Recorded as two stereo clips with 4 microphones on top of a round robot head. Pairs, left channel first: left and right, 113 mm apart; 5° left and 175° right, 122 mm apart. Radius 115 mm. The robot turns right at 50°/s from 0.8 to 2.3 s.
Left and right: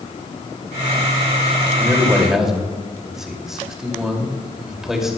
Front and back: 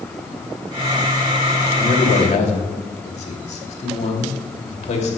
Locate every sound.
1.8 s a man speaking: 30° right, 2.5 m; by 5.2 s 5° right, 2.5 m